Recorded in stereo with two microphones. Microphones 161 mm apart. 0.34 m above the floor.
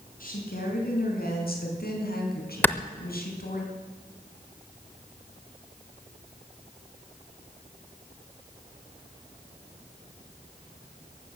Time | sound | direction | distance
0.2 | a woman speaking | 55° left (ahead or behind) | 4.5 m
2.6 | a clap | 10° left (ahead or behind) | 0.6 m